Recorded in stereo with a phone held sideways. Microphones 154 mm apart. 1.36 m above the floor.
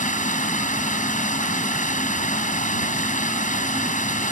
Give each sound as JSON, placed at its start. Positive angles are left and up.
{"t": 0.0, "sound": "running water", "side_deg": 55}